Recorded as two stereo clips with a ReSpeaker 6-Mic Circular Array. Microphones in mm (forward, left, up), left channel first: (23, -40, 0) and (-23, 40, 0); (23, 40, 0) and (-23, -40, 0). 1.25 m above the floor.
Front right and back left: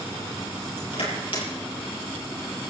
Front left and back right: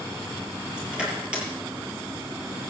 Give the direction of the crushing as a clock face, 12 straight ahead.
1 o'clock.